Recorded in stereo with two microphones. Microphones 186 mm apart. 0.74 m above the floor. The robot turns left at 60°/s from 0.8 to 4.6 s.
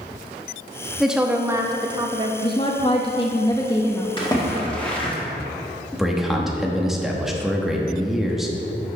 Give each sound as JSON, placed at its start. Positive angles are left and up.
{"t": 1.0, "sound": "a woman speaking", "side_deg": 0, "distance_m": 0.8}
{"t": 2.4, "sound": "a woman speaking", "side_deg": 25, "distance_m": 0.8}
{"t": 4.2, "sound": "a splash", "side_deg": 30, "distance_m": 1.8}
{"t": 5.9, "sound": "a man speaking", "side_deg": 0, "distance_m": 1.1}